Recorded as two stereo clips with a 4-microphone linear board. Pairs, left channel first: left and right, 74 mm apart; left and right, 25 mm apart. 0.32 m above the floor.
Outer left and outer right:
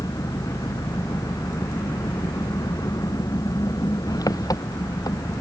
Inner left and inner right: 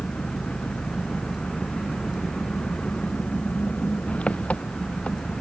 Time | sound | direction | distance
0.0 | an engine running | 55° left (ahead or behind) | ?